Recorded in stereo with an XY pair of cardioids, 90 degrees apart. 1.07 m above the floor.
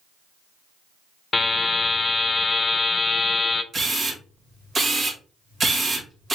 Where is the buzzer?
30° left, 0.9 m.